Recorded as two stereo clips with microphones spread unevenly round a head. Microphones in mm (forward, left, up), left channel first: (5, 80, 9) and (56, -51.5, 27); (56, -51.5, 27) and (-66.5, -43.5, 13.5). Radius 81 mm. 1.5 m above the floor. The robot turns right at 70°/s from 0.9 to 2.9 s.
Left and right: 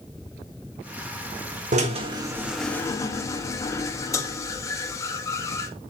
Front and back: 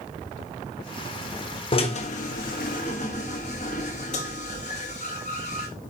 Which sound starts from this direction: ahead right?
A drill, at 1.7 s.